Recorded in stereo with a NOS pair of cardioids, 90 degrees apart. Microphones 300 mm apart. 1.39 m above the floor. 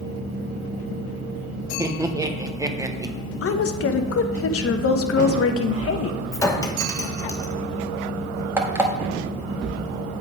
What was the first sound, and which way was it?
Laughter, 10° right.